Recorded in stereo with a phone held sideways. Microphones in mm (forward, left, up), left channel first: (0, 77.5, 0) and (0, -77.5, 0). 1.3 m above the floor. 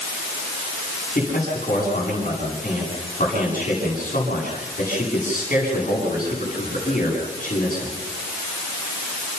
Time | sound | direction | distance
1.1 | a man speaking | 55° left (ahead or behind) | 9.5 m